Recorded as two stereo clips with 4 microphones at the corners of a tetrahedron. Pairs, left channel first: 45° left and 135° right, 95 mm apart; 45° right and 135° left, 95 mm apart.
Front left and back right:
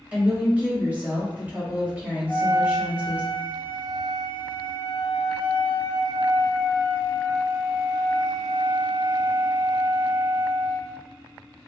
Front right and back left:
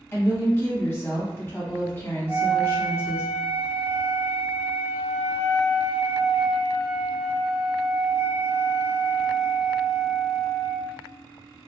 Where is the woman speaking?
75° right, 1.3 m.